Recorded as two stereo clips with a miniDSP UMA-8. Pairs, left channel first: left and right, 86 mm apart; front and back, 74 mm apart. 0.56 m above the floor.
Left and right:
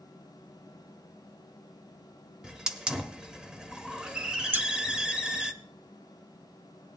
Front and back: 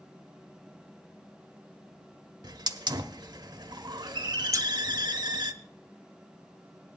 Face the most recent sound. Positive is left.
turn(degrees=-150)